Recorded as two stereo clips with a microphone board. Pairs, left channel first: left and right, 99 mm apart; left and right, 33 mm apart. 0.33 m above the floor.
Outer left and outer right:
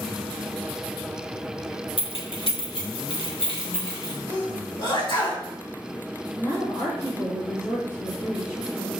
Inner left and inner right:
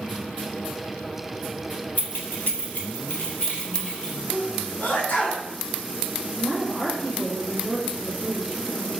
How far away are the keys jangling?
About 1.2 m.